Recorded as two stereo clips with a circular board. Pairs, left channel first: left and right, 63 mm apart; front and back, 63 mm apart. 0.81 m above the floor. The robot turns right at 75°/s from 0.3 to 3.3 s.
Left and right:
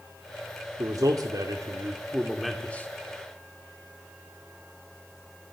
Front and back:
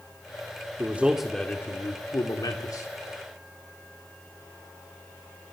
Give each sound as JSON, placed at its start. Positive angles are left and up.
{"t": 0.8, "sound": "a man speaking", "azimuth_deg": -125, "distance_m": 1.6}